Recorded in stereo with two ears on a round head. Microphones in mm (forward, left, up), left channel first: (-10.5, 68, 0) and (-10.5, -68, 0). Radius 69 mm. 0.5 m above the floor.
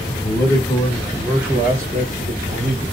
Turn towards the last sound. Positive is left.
turn(degrees=-35)  # may be behind; listen again after turning